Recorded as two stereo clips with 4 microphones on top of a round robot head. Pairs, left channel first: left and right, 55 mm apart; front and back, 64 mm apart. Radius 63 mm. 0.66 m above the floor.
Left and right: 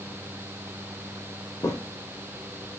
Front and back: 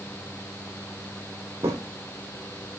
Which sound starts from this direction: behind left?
Footsteps, at 1.6 s.